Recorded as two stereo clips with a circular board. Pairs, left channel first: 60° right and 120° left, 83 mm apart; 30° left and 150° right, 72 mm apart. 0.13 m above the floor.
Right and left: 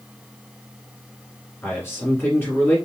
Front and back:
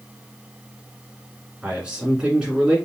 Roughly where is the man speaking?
Right.